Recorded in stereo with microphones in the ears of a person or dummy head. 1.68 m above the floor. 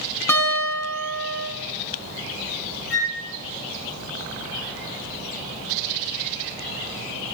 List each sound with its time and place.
0.3 s a guitar: 15° left (ahead or behind), 5 m
2.9 s a flute: 10° right (ahead or behind), 7.5 m